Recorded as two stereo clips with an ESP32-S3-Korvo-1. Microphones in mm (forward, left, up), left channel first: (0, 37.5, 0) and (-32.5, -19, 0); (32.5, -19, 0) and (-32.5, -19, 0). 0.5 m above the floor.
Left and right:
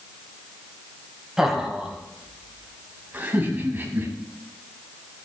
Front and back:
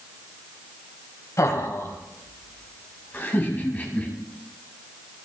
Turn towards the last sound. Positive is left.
turn(degrees=-65)